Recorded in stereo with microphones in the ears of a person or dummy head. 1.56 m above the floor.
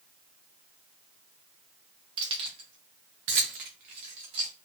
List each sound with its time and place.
2.2 s keys jangling: 30° right (ahead or behind), 0.9 m; by 4.5 s 20° right (ahead or behind), 0.8 m